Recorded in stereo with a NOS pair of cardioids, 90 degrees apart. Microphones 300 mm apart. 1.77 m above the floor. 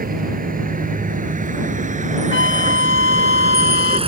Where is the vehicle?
30° right; by 4.1 s 20° right.